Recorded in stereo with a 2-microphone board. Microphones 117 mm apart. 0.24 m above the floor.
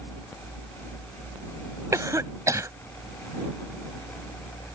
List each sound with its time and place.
1.9 s a cough: 30° right (ahead or behind)